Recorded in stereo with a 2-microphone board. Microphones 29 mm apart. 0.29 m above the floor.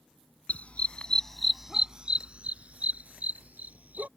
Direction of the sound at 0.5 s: 55° left (ahead or behind).